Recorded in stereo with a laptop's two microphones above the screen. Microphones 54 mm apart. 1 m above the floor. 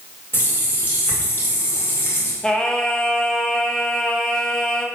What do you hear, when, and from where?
0.3 s a running tap: 40° left (ahead or behind), 2 m
2.4 s singing: 15° left (ahead or behind), 1.1 m